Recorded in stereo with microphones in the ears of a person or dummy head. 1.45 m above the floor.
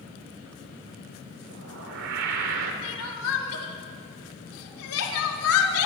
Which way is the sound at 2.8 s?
80° left.